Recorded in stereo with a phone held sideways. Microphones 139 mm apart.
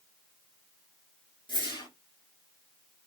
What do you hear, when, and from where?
1.5 s a whoosh: 35° left (ahead or behind), 1.7 m